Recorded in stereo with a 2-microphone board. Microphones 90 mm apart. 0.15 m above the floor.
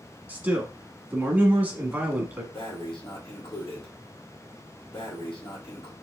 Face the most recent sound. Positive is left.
turn(degrees=70)  # may be behind; listen again after turning